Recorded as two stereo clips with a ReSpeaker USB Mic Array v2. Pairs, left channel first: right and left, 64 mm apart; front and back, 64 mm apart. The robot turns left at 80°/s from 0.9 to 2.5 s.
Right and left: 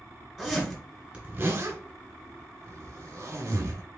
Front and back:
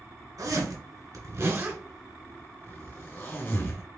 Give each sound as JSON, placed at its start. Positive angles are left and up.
{"t": 0.4, "sound": "a zipper", "azimuth_deg": 175, "distance_m": 1.6}